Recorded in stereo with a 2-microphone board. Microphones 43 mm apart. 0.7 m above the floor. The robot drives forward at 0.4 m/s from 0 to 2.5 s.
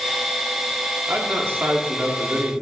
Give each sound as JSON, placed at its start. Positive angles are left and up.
{"t": 1.1, "sound": "a man speaking", "side_deg": -60, "distance_m": 1.1}